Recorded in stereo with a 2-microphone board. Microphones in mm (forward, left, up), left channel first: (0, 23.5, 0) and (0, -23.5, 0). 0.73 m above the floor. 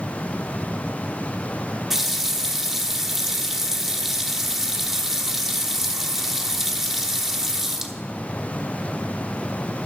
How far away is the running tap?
About 0.9 m.